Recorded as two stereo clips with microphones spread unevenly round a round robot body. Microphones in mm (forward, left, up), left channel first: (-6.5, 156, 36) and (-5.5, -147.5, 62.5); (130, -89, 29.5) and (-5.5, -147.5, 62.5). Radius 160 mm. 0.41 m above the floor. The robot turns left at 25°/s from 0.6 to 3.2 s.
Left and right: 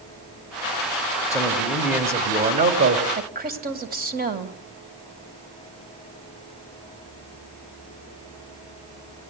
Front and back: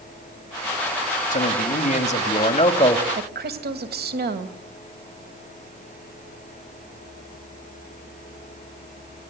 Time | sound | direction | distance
1.3 | a man speaking | 10° left | 2.5 m
3.1 | a woman speaking | 150° right | 2.5 m